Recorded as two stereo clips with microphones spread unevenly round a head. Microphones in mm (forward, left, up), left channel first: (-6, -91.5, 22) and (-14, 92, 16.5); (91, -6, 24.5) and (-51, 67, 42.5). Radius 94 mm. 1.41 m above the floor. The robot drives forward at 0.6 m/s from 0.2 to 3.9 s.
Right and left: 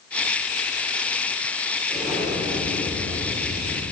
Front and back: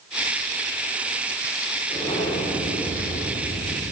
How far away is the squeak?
I don't hear a squeak.